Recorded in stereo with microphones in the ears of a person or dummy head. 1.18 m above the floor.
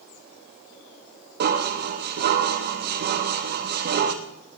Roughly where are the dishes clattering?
Right.